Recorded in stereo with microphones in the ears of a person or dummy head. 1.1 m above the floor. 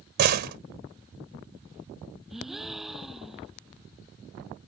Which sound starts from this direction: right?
A door slam, at 0.2 s.